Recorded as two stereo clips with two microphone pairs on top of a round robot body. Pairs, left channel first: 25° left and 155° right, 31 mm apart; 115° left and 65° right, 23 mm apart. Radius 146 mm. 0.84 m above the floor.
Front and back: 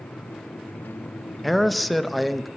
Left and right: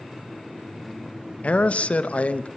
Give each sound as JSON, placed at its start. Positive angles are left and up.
{"t": 1.4, "sound": "a man speaking", "azimuth_deg": 110, "distance_m": 0.9}